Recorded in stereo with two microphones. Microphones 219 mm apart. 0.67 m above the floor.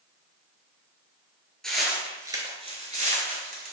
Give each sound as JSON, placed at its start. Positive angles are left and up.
{"t": 1.6, "sound": "footsteps", "side_deg": 5, "distance_m": 0.8}